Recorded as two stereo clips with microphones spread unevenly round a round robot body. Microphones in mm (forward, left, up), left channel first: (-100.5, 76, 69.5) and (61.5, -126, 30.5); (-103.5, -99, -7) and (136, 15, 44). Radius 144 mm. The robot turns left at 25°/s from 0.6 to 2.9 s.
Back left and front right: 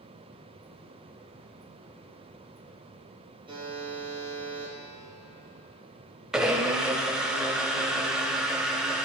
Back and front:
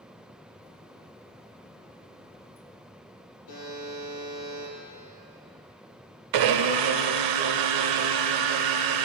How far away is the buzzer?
About 3 m.